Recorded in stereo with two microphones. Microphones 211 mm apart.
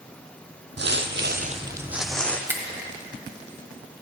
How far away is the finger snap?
About 1.3 m.